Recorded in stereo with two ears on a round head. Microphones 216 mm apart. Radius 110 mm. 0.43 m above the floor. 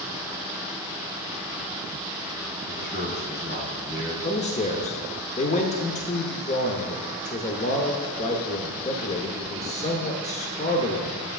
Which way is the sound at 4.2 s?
30° left (ahead or behind).